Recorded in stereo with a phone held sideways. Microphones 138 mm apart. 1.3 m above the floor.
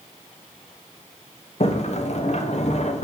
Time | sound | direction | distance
1.6 | a sliding door | 55° left (ahead or behind) | 0.8 m